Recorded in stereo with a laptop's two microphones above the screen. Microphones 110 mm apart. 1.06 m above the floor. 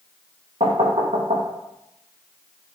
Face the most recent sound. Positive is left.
turn(degrees=-70)  # may be behind; listen again after turning